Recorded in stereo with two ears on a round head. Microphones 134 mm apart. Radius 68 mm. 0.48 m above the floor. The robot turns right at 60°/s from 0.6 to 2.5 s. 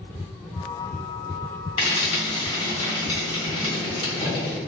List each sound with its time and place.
1.8 s frying: 40° left (ahead or behind), 1.6 m; by 4.6 s 30° left (ahead or behind), 1.6 m